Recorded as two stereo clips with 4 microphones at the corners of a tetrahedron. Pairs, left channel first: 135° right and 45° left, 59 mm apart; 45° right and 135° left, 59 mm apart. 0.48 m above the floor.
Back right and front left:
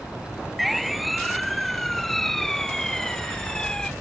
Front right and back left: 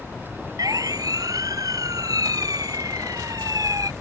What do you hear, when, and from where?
0.6 s a siren: 130° left; by 3.9 s 145° left